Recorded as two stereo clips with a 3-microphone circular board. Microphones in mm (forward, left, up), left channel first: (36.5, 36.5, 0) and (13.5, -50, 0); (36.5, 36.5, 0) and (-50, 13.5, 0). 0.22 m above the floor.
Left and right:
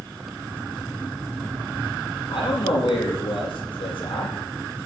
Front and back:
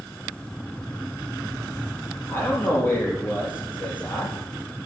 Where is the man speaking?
85° left, 5 m.